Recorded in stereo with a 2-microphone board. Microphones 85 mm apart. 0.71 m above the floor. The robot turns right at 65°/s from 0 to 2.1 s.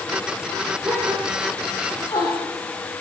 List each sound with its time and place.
0.8 s a gasp: 35° right (ahead or behind), 9 m; by 2.5 s 50° left (ahead or behind), 9 m